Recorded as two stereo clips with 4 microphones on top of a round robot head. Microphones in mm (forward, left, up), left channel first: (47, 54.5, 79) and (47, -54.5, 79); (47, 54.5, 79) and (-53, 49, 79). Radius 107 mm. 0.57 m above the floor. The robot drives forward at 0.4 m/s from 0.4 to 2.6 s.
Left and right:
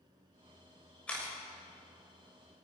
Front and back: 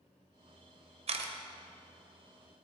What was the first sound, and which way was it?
A camera shutter, 170° left.